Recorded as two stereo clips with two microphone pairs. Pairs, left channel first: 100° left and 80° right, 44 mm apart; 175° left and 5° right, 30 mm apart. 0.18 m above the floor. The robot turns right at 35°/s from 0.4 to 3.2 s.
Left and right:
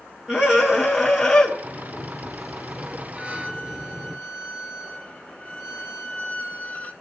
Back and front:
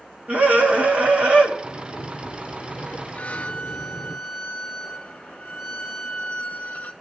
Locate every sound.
0.3 s a scream: 10° right, 1.9 m; by 1.5 s 30° left, 1.9 m
1.6 s a sliding door: 160° left, 0.6 m; by 4.2 s 145° right, 0.6 m
3.2 s a violin: 150° left, 0.6 m; by 6.9 s 155° left, 0.6 m